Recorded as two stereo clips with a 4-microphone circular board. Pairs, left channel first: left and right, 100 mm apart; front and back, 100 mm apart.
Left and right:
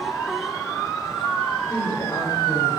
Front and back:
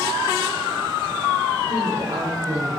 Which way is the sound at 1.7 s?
145° left.